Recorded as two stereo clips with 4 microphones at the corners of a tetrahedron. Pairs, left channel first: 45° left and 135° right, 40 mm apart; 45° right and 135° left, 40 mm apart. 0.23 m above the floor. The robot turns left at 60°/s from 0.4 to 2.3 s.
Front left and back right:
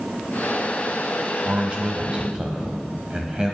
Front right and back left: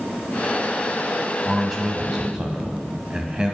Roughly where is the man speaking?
Behind right.